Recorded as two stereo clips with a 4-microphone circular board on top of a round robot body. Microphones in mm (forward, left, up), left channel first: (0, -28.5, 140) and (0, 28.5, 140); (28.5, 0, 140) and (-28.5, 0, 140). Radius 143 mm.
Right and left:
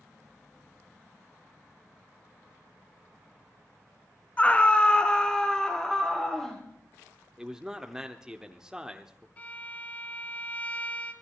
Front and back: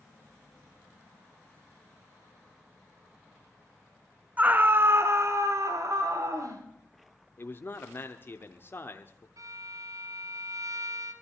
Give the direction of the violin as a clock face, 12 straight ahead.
5 o'clock.